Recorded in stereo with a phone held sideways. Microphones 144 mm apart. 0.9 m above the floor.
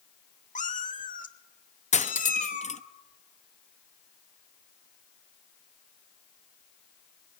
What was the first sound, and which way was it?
A cat meowing, 65° left (ahead or behind).